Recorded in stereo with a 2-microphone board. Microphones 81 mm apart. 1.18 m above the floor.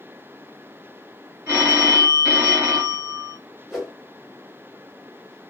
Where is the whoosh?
5° right (ahead or behind), 1.5 m.